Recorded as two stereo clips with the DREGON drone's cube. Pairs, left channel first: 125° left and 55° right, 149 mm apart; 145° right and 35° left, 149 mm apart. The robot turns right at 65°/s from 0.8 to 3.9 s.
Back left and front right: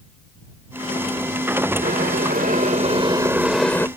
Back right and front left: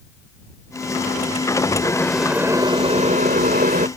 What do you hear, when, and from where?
1.8 s boiling: 80° right; by 3.9 s 55° left